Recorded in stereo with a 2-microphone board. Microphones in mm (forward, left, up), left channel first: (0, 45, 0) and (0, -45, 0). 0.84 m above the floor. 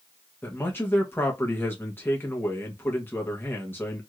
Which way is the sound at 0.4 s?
25° left (ahead or behind).